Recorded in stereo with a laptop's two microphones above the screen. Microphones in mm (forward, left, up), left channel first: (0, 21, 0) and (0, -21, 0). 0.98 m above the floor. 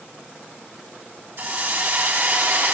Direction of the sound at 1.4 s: 55° right (ahead or behind).